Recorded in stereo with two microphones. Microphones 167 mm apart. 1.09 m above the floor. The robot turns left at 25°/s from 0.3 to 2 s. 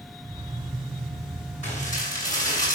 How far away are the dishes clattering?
About 7.5 m.